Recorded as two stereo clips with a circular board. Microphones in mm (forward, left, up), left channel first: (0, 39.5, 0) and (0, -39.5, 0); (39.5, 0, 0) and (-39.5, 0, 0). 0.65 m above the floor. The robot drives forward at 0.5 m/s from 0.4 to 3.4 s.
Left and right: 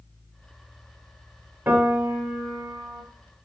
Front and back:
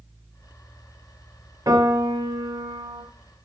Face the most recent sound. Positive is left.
turn(degrees=-165)